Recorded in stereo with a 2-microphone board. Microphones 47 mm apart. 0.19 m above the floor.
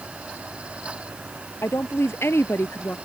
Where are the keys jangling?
No keys jangling in this recording.